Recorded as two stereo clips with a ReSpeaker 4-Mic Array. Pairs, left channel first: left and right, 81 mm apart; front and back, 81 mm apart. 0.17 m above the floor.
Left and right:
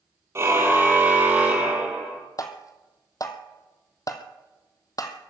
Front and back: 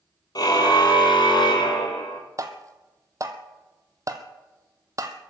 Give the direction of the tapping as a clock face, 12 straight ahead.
8 o'clock.